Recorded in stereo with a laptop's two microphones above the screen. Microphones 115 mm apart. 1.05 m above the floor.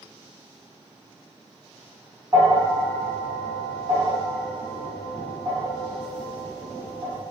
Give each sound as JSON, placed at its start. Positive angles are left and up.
{"t": 2.3, "sound": "a bell", "side_deg": -25, "distance_m": 1.0}